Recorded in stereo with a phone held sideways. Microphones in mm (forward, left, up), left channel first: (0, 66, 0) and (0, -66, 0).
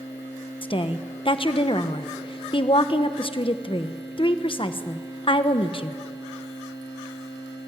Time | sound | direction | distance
0.6 | a woman speaking | 40° left (ahead or behind) | 1.0 m